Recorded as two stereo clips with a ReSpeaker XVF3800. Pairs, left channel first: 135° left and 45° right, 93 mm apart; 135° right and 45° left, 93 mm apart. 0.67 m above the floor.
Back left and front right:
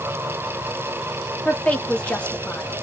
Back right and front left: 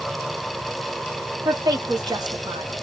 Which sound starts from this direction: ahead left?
A woman speaking, at 1.4 s.